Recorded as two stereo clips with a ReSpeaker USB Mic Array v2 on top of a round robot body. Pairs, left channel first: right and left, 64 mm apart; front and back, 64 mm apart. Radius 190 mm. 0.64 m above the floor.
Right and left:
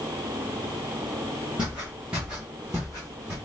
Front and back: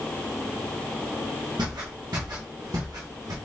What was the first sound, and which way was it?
Footsteps, 165° left.